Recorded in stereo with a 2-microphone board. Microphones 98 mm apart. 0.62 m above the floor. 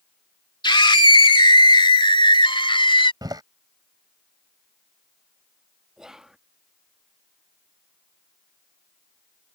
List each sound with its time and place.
0.6 s a scream: 55° left (ahead or behind); by 3.1 s 60° left (ahead or behind)
3.2 s a door slam: 45° right (ahead or behind)
6.0 s whispering: 5° right (ahead or behind)